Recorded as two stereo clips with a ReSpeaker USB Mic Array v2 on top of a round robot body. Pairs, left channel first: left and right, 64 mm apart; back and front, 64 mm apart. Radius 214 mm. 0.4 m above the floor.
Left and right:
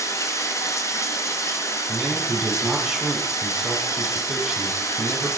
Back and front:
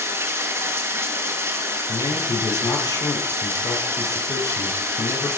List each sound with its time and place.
0.0 s running water: 50° left, 1.6 m
1.9 s a man speaking: 175° right, 5 m